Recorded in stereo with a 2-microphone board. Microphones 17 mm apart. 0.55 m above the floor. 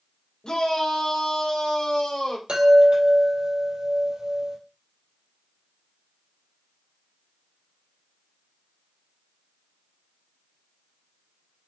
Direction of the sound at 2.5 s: 80° right.